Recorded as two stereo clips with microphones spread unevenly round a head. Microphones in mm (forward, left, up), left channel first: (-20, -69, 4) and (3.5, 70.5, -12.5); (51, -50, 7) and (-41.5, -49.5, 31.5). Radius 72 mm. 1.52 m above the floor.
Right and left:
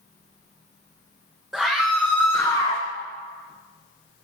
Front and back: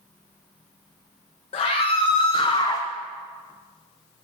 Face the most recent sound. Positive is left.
turn(degrees=-55)